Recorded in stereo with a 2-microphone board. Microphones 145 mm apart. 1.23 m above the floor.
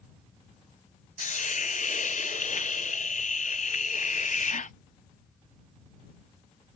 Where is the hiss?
60° left (ahead or behind).